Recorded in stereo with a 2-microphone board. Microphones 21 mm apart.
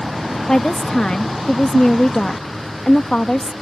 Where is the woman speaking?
40° left (ahead or behind).